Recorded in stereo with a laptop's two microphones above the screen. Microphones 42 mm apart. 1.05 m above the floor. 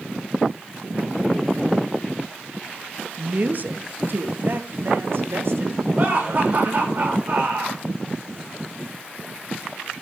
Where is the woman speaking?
40° right (ahead or behind), 1.2 m; by 5.8 s 70° right (ahead or behind), 2.5 m.